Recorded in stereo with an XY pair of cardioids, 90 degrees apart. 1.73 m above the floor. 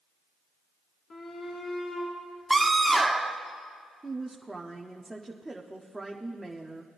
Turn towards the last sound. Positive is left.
turn(degrees=-10)